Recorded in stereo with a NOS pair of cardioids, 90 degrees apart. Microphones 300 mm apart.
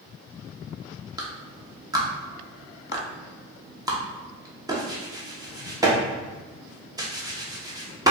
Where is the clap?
10° right, 0.9 m.